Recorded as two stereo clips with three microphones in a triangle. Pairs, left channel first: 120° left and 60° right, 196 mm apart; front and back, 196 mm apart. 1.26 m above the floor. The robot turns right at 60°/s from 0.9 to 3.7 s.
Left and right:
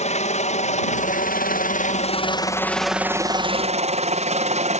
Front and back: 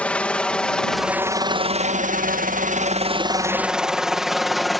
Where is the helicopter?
80° left; by 4.8 s 90° right.